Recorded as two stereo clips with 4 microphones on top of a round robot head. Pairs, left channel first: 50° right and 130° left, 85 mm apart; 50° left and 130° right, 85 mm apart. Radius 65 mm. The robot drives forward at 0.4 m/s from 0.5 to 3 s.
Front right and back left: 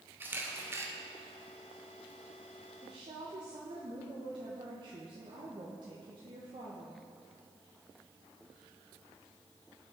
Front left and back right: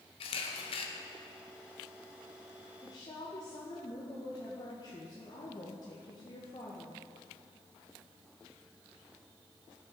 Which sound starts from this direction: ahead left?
A camera shutter, at 0.2 s.